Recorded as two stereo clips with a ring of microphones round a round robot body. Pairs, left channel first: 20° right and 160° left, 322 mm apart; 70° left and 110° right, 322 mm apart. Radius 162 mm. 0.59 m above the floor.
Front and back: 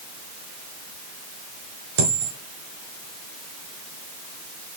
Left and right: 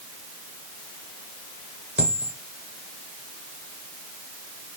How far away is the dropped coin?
About 3 m.